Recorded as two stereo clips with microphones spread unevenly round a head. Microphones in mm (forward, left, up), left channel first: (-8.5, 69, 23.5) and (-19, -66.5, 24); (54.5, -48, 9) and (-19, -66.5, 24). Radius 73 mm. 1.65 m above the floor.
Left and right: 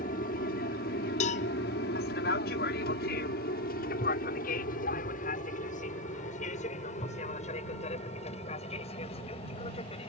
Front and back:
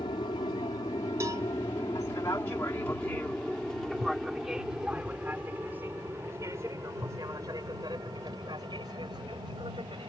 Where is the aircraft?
55° left; by 10.1 s 135° left.